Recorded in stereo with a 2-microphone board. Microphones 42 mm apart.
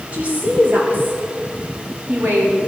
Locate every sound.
0.1 s a woman speaking: 35° right (ahead or behind), 3.5 m; by 2.6 s 75° right (ahead or behind), 3.5 m